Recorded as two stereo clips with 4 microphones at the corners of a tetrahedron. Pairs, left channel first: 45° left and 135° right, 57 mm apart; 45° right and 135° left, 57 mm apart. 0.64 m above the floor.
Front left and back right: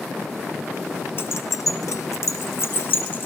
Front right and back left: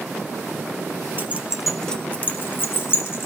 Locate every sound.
1.2 s keys jangling: 90° left, 0.7 m; by 3.3 s 5° right, 1.7 m